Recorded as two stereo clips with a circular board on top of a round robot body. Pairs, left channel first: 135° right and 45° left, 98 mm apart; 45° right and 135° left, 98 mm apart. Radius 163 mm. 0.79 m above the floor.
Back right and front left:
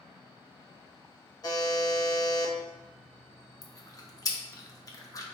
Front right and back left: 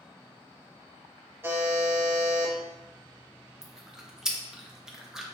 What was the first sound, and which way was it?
A buzzer, 165° right.